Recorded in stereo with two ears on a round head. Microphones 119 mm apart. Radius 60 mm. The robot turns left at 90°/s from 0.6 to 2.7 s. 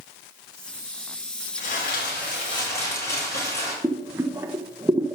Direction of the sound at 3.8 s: 20° right (ahead or behind).